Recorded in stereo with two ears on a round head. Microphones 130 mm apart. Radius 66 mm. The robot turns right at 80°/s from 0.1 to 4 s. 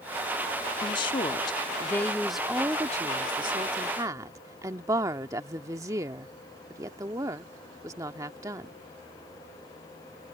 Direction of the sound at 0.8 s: 60° left.